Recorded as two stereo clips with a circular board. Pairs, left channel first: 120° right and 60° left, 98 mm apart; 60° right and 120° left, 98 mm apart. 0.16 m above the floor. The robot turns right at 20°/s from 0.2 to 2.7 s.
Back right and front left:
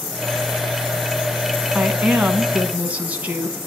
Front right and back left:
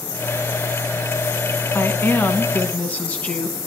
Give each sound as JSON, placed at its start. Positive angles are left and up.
{"t": 1.7, "sound": "a woman speaking", "azimuth_deg": -20, "distance_m": 1.1}